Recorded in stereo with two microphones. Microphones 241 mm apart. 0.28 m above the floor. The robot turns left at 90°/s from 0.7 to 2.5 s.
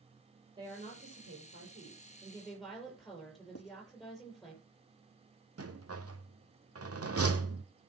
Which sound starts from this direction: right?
A rattle, at 5.6 s.